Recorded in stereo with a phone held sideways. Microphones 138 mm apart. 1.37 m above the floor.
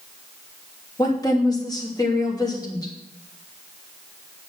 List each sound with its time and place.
1.0 s a woman speaking: 30° left (ahead or behind), 3 m